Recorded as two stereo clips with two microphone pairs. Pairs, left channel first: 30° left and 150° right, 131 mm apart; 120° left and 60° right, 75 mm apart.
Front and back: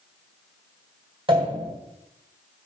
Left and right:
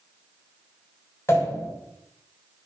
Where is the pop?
170° left, 2.5 m.